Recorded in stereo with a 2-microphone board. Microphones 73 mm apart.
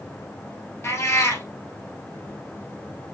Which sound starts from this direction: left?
A cat meowing, at 0.8 s.